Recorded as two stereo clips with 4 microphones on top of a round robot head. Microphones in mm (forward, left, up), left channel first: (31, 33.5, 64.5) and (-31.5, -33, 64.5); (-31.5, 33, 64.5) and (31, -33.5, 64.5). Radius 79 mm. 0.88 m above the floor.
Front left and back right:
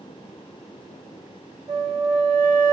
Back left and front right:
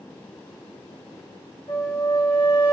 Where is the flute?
175° left, 1.0 m.